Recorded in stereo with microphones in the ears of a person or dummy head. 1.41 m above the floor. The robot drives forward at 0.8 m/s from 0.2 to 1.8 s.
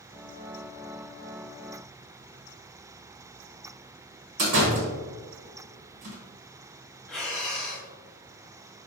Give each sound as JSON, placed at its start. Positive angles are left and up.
{"t": 4.4, "sound": "a door slam", "side_deg": -45, "distance_m": 0.9}
{"t": 7.1, "sound": "breathing", "side_deg": 5, "distance_m": 0.8}